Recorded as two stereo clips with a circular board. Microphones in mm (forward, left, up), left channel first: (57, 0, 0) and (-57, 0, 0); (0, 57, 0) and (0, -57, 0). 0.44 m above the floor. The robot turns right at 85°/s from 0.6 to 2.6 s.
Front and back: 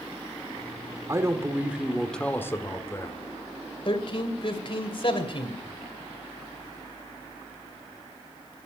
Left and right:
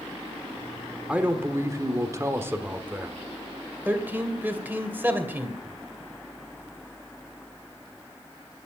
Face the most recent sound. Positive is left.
turn(degrees=-20)